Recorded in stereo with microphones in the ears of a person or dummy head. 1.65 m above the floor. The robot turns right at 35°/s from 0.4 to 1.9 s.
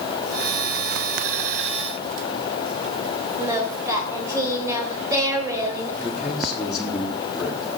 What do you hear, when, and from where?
3.4 s singing: 20° right (ahead or behind), 3 m
6.0 s a man speaking: centre (ahead or behind), 3.5 m